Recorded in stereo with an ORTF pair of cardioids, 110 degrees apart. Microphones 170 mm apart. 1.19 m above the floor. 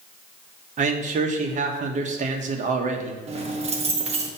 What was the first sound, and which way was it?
A man speaking, 45° right.